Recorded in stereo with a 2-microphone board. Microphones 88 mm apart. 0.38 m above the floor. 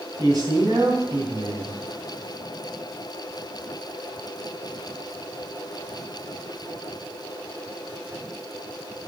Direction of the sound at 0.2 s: 45° right (ahead or behind).